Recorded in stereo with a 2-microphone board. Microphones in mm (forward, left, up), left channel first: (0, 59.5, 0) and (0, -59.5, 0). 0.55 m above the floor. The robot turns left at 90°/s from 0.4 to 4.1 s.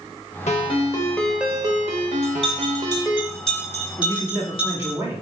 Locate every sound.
0.5 s a ringtone: 75° left, 0.6 m; by 3.2 s 175° right, 0.6 m
2.2 s a bell: 50° right (ahead or behind), 1.5 m; by 4.9 s 45° left (ahead or behind), 1.5 m
4.0 s a man speaking: 20° right (ahead or behind), 0.9 m; by 5.2 s 25° right (ahead or behind), 0.9 m